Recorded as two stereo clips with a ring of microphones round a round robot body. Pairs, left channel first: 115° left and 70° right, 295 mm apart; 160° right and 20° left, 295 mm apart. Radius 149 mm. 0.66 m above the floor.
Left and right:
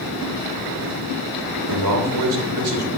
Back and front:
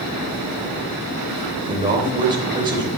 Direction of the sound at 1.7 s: 50° right.